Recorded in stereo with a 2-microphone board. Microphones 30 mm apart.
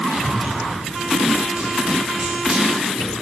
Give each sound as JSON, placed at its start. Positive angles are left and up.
{"t": 0.1, "sound": "running footsteps", "side_deg": -40, "distance_m": 9.0}